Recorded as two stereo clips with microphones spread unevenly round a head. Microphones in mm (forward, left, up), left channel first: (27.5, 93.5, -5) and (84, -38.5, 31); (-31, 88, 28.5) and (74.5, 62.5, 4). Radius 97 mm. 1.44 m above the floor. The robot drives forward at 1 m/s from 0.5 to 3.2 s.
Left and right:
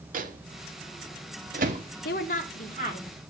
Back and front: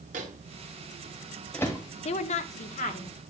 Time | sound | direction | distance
0.1 | a microwave | 40° right | 1.1 m
2.0 | a woman speaking | 160° left | 0.5 m